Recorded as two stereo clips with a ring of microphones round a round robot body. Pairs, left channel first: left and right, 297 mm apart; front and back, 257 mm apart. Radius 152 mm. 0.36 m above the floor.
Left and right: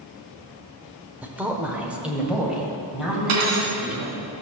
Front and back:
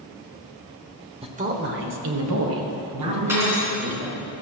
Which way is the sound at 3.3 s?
100° right.